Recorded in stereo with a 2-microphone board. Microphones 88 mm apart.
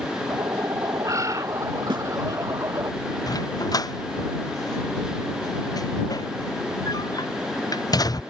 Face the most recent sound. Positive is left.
turn(degrees=45)  # may be behind; listen again after turning